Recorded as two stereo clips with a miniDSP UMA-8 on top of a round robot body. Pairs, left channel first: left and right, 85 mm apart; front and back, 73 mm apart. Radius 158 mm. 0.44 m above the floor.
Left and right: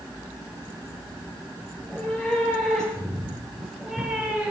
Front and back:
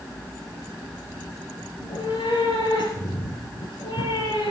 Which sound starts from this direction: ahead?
A cat meowing, at 1.8 s.